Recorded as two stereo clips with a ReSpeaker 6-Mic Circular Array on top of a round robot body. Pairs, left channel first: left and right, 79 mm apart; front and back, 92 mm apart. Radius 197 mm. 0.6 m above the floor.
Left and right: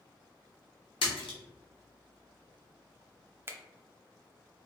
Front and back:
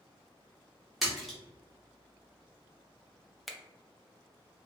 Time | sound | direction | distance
1.0 | a splash | 90° left | 0.5 m
3.5 | a finger snap | 90° right | 0.7 m